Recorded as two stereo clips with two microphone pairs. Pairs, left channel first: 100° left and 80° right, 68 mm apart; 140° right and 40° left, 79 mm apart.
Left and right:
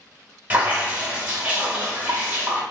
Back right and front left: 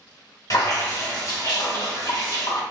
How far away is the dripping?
About 1.0 m.